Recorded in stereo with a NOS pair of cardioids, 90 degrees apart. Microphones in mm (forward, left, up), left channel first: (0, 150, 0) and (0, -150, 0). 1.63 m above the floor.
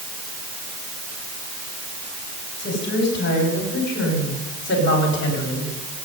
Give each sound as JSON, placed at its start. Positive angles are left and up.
{"t": 2.6, "sound": "a woman speaking", "azimuth_deg": 35, "distance_m": 8.5}